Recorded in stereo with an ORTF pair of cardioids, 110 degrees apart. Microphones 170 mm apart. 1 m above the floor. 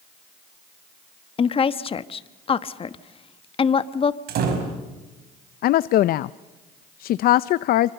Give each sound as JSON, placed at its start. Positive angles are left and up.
{"t": 1.4, "sound": "a woman speaking", "azimuth_deg": 35, "distance_m": 1.1}
{"t": 4.3, "sound": "a door slam", "azimuth_deg": -65, "distance_m": 5.0}
{"t": 5.6, "sound": "a woman speaking", "azimuth_deg": 65, "distance_m": 0.5}